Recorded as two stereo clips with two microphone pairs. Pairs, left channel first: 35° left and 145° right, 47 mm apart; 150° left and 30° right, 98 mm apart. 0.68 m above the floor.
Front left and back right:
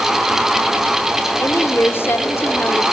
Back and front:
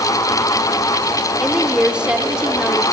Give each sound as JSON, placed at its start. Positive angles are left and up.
{"t": 1.4, "sound": "a woman speaking", "azimuth_deg": 50, "distance_m": 2.0}